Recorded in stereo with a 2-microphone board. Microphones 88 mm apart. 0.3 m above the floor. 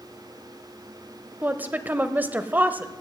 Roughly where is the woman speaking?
Right.